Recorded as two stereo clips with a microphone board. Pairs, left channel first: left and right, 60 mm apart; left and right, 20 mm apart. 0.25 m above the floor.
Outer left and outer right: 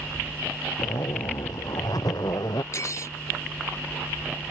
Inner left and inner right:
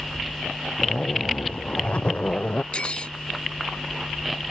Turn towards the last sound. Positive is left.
turn(degrees=50)  # may be behind; listen again after turning